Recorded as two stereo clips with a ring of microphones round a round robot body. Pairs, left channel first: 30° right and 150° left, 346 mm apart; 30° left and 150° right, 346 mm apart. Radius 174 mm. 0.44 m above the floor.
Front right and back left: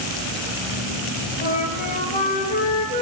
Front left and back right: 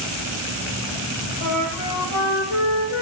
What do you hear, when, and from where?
1.4 s a flute: 35° left, 1.7 m